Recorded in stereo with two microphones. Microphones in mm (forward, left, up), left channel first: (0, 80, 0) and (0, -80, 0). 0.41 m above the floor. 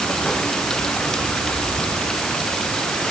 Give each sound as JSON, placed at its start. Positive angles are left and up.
{"t": 0.0, "sound": "running water", "side_deg": 5}